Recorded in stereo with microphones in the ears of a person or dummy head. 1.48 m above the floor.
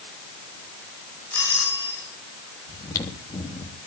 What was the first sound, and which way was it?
A doorbell, 10° left (ahead or behind).